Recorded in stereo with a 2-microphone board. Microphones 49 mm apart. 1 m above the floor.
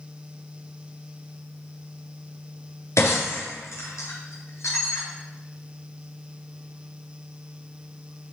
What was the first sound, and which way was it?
Breaking glass, 80° left.